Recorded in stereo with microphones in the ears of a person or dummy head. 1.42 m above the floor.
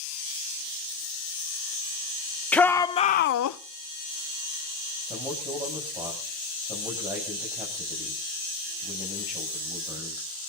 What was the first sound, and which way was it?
A shout, 5° left (ahead or behind).